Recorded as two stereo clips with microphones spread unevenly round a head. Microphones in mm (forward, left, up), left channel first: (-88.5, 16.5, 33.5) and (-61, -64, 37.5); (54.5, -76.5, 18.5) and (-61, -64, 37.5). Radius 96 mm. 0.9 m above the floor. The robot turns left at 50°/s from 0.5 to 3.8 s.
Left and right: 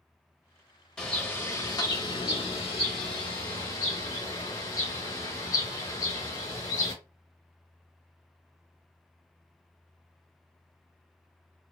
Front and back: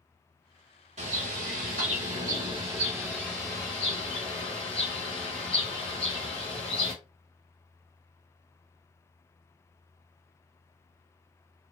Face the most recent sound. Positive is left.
turn(degrees=45)